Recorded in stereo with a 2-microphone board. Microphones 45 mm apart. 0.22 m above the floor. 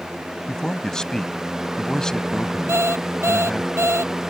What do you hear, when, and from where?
0.5 s a man speaking: 15° left (ahead or behind)
2.7 s an alarm clock: 80° right